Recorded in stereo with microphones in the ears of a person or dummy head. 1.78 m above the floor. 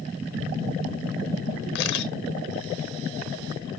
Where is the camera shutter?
55° left (ahead or behind), 0.9 m.